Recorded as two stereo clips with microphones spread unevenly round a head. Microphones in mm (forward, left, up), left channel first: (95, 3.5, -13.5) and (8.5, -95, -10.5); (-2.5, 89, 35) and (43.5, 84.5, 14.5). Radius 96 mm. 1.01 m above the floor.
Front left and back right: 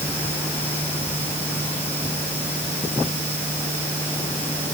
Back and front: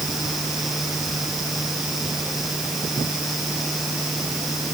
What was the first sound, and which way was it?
Only background noise.